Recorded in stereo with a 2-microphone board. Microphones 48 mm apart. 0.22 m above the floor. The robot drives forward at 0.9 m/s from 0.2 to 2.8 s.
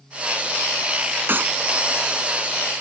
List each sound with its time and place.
1.3 s a clap: 45° right (ahead or behind)